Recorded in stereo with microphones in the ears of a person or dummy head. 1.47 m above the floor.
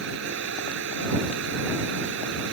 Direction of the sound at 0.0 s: 65° right (ahead or behind).